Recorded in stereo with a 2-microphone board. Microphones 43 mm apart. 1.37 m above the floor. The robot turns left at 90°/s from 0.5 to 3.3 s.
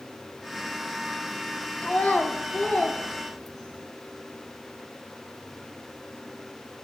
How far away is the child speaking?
About 0.7 m.